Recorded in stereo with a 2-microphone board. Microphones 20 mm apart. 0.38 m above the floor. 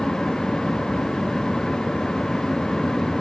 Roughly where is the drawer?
No drawer in this recording.